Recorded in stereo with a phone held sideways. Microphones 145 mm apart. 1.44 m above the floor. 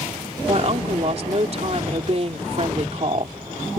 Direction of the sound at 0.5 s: 45° right (ahead or behind).